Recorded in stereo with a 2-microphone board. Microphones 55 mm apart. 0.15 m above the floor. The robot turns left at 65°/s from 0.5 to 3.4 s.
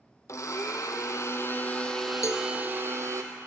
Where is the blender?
110° left, 1.1 m; by 3.2 s 70° right, 1.1 m.